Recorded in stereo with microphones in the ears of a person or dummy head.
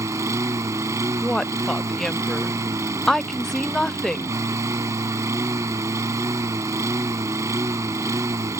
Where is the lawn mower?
20° right (ahead or behind).